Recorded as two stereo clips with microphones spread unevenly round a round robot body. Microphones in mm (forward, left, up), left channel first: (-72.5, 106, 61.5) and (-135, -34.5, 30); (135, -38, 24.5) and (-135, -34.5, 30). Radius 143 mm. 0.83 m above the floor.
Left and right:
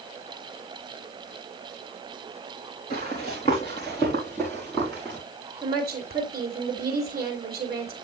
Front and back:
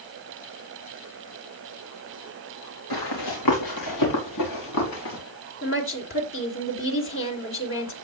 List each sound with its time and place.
2.9 s running footsteps: straight ahead, 4 m; by 5.2 s 20° right, 5 m
5.6 s a woman speaking: 45° right, 2.5 m